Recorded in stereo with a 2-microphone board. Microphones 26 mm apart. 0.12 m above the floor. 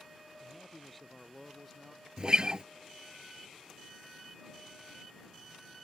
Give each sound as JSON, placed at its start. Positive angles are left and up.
{"t": 0.4, "sound": "a man speaking", "side_deg": 10}
{"t": 2.2, "sound": "a guitar", "side_deg": -35}